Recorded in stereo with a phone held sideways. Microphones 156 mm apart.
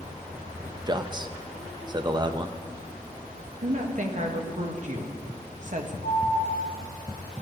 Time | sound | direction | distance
0.9 | a man speaking | 30° right (ahead or behind) | 0.6 m
3.6 | a woman speaking | 50° right (ahead or behind) | 1.2 m
6.0 | an alarm | 65° right (ahead or behind) | 2.5 m